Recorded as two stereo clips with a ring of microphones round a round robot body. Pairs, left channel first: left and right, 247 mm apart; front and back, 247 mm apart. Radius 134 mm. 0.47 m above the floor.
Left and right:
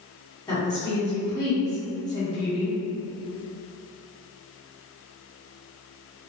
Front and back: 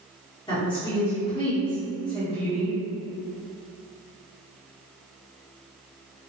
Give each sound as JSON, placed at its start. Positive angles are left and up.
{"t": 0.5, "sound": "a woman speaking", "azimuth_deg": 35, "distance_m": 1.1}